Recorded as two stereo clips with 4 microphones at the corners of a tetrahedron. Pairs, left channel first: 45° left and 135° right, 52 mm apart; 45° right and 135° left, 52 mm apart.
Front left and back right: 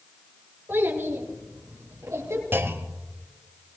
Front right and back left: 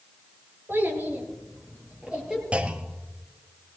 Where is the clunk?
165° right, 1.2 m.